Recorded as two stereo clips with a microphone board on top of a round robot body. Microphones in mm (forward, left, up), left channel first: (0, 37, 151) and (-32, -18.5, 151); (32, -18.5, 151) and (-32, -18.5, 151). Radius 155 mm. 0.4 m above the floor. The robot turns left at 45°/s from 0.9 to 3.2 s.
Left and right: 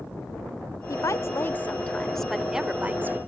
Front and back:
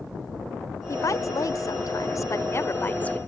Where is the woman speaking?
35° left; by 3.2 s 70° right.